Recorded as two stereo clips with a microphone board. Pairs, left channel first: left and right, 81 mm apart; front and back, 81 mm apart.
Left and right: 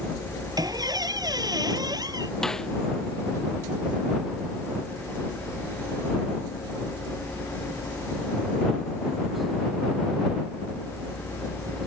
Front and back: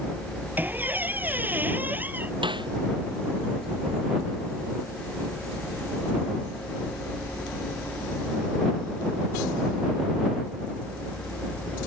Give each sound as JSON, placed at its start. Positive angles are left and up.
{"t": 0.6, "sound": "a squeak", "azimuth_deg": -115}
{"t": 2.4, "sound": "a snare drum", "azimuth_deg": 175}